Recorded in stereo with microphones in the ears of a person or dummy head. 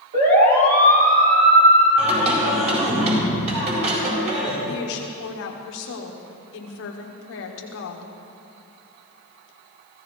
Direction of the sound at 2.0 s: 40° right (ahead or behind).